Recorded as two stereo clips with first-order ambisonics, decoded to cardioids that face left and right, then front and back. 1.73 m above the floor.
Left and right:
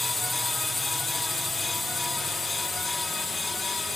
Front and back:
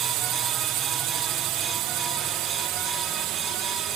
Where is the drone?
165° left.